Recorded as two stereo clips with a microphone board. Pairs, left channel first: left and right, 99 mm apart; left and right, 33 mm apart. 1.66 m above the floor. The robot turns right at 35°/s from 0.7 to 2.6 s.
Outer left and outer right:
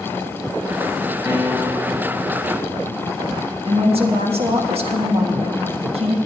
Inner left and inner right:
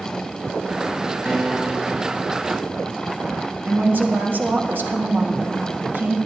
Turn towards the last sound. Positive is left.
turn(degrees=-80)